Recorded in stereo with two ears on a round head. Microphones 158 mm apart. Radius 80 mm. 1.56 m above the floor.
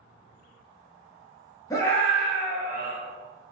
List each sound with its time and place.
1.7 s a scream: 20° left (ahead or behind), 1.0 m; by 3.0 s 15° right (ahead or behind), 1.7 m